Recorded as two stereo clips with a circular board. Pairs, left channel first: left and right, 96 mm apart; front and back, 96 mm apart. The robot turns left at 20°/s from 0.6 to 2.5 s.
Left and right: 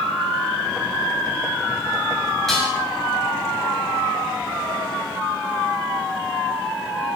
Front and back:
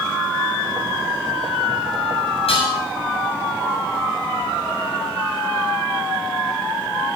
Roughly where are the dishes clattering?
Ahead.